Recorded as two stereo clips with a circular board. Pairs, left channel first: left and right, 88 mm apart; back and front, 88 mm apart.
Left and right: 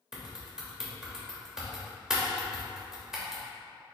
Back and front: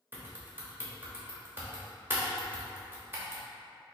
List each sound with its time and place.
0.1 s typing on a keyboard: 15° right, 0.8 m